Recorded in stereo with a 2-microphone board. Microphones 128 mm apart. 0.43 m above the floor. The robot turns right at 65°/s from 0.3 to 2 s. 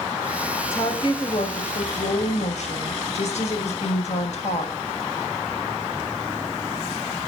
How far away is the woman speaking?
About 2.5 m.